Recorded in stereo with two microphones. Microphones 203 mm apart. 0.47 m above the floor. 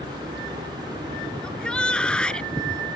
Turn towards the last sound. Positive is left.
turn(degrees=5)  # may be behind; listen again after turning